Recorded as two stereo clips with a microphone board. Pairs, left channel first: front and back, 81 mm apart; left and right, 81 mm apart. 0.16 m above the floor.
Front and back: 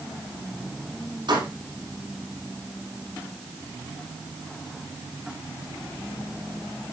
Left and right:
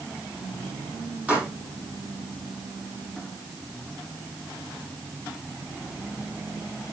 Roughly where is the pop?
Behind.